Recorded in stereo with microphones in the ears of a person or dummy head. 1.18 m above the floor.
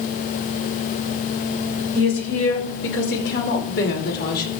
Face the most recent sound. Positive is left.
turn(degrees=55)  # may be behind; listen again after turning